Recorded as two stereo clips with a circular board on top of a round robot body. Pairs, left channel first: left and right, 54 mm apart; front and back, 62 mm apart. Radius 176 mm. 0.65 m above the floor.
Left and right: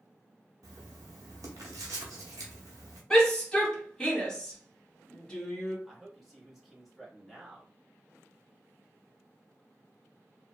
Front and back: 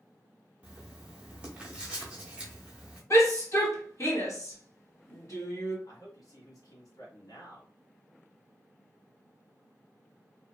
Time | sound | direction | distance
0.6 | writing | 105° right | 0.6 m
3.1 | a shout | 15° left | 2 m
5.9 | a man speaking | straight ahead | 1.5 m